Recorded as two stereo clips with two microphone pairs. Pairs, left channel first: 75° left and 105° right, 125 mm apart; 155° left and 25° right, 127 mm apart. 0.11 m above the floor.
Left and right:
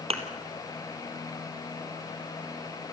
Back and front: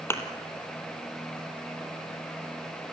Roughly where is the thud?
Behind right.